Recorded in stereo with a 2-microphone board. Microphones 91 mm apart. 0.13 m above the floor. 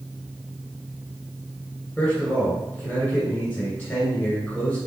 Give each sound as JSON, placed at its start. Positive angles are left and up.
{"t": 2.0, "sound": "a man speaking", "side_deg": 10, "distance_m": 1.6}